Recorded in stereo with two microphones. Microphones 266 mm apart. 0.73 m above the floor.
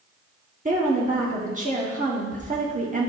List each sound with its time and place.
0.7 s a woman speaking: 30° right (ahead or behind), 1.2 m